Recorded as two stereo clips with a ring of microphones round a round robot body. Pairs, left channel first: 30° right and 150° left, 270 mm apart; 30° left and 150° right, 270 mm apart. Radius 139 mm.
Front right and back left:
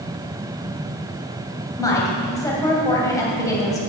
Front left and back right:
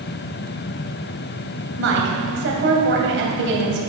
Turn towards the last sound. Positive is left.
turn(degrees=-105)